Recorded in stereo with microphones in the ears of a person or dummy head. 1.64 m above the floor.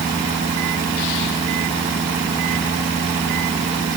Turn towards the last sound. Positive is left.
No sound to turn to.